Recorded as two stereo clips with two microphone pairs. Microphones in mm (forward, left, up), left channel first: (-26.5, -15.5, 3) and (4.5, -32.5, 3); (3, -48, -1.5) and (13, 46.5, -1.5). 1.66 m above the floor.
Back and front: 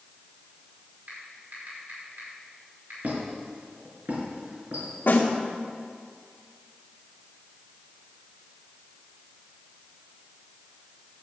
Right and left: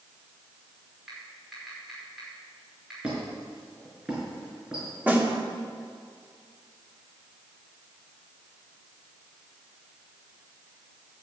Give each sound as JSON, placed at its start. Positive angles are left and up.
{"t": 1.1, "sound": "typing on a keyboard", "azimuth_deg": 0, "distance_m": 5.0}
{"t": 3.0, "sound": "a squeak", "azimuth_deg": 5, "distance_m": 4.5}
{"t": 5.1, "sound": "a snare drum", "azimuth_deg": 160, "distance_m": 2.0}